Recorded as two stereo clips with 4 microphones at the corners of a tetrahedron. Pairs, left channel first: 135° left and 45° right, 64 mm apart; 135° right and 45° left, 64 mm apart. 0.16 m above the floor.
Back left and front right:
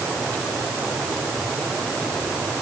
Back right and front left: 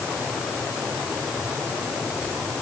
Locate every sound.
Only background noise.